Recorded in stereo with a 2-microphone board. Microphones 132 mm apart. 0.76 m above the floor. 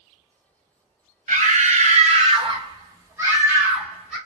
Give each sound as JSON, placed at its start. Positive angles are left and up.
{"t": 1.3, "sound": "a scream", "side_deg": -65, "distance_m": 0.9}